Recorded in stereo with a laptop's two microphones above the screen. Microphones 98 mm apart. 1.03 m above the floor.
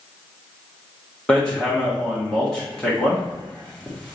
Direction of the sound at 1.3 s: 10° left (ahead or behind).